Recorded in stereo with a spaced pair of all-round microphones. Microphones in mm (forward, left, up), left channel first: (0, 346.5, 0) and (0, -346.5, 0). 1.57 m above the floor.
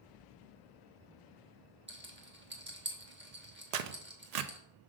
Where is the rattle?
15° right (ahead or behind), 1.1 m.